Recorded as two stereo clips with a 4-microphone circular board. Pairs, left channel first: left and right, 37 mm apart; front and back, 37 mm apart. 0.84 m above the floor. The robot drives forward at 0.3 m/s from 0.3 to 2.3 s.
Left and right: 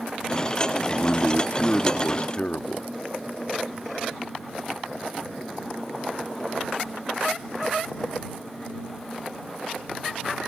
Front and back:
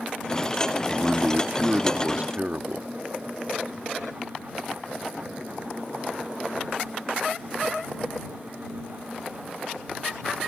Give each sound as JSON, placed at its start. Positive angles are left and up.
{"t": 0.9, "sound": "a man speaking", "azimuth_deg": 120}